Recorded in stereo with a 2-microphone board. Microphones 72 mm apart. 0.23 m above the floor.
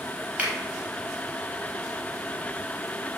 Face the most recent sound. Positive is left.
turn(degrees=-20)  # may be behind; listen again after turning